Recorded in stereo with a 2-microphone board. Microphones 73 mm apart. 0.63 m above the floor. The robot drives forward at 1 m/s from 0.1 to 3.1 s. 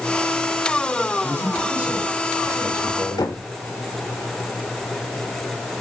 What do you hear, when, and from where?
1.2 s a man speaking: 25° right (ahead or behind), 6.5 m; by 3.3 s 35° right (ahead or behind), 5 m
3.2 s knocking: 60° left (ahead or behind), 2 m